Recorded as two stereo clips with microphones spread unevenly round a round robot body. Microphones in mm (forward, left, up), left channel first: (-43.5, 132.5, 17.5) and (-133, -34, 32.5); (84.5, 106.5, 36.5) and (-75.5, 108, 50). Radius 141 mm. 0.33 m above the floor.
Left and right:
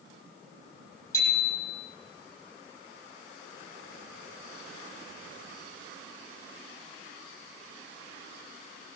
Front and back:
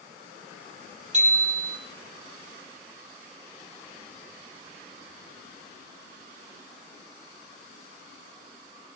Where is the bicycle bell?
135° left, 9.5 m.